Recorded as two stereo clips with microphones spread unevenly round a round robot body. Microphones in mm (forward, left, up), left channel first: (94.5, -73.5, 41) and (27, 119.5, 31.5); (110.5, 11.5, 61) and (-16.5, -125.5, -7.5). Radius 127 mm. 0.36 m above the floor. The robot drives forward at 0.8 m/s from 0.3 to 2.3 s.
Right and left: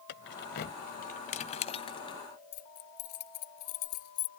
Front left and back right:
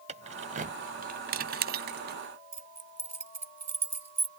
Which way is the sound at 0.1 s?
105° right.